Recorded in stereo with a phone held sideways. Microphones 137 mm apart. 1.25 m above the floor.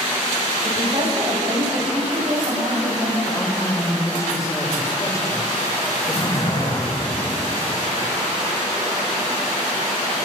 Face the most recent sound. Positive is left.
turn(degrees=50)  # may be behind; listen again after turning